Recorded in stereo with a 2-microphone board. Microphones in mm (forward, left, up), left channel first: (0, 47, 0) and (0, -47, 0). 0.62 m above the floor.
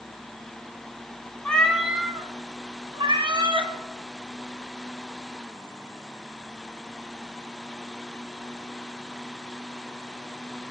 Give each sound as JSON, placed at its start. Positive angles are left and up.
{"t": 1.4, "sound": "a cat meowing", "side_deg": 15, "distance_m": 0.8}